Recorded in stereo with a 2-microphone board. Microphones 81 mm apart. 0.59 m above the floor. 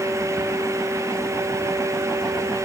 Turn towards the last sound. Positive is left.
No sound to turn to.